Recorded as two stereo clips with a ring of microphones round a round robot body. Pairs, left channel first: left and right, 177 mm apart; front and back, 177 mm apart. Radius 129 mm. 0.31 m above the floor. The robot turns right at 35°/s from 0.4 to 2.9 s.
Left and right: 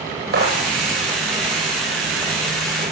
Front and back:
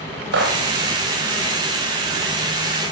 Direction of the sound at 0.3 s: 140° right.